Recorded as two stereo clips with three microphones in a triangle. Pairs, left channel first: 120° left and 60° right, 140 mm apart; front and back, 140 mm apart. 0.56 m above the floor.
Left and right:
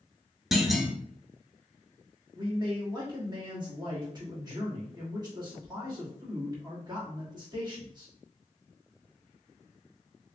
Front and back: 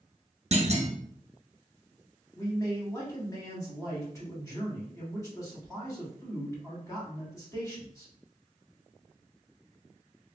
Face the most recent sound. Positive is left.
turn(degrees=-45)